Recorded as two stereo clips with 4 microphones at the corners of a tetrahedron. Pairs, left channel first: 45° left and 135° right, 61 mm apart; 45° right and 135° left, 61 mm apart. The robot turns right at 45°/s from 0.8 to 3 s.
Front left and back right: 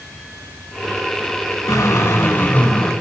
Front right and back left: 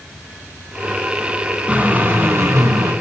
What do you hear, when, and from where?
1.7 s a drill: 65° left, 4.5 m; by 2.9 s 120° left, 4.5 m